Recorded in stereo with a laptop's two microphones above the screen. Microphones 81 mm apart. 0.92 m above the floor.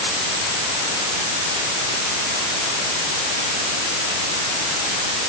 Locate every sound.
Only background noise.